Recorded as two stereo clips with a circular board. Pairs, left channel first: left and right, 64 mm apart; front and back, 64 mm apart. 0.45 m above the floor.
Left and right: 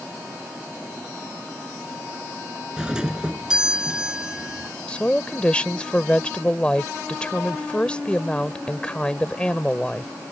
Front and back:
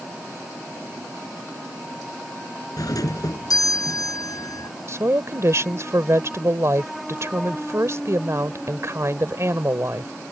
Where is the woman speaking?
160° left.